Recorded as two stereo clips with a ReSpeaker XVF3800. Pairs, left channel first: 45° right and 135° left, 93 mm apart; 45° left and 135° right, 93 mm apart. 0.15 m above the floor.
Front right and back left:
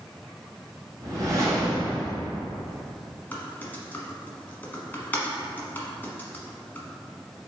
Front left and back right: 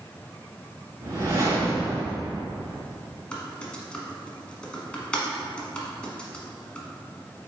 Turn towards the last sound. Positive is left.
turn(degrees=-15)